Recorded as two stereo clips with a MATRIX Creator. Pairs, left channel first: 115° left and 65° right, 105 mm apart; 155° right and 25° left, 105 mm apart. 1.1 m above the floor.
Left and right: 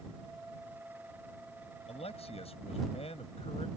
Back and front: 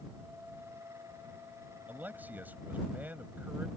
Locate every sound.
1.9 s a man speaking: 95° left